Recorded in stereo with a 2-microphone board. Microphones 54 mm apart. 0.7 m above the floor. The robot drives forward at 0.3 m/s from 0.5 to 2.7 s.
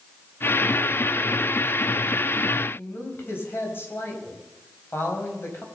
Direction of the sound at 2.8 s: 45° left (ahead or behind).